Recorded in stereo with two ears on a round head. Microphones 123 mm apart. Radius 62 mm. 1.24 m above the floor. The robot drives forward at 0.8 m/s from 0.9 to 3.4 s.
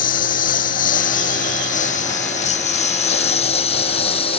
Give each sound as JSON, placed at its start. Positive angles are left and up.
{"t": 0.0, "sound": "a lawn mower", "side_deg": 70}